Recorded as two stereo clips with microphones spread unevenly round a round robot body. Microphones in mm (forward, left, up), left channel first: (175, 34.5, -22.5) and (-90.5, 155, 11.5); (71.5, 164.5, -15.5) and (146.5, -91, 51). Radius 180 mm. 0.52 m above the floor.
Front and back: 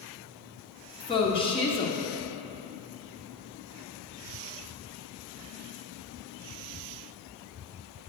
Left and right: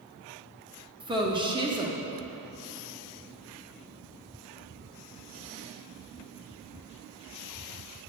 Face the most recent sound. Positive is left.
turn(degrees=10)